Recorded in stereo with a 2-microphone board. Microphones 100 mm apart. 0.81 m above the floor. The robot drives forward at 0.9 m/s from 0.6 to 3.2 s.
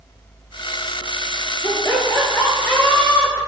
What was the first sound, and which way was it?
Laughter, 30° left (ahead or behind).